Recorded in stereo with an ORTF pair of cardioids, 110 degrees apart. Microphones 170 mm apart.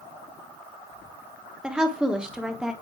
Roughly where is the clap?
I don't hear a clap.